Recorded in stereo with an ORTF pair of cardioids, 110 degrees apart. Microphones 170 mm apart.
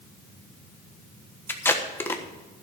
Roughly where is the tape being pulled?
Ahead.